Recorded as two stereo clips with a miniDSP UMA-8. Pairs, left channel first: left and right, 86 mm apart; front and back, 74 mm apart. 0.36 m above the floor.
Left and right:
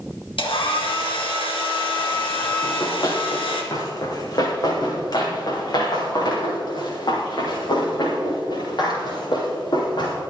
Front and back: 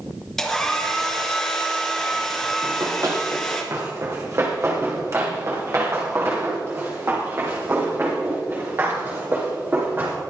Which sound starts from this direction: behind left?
Running footsteps, at 2.6 s.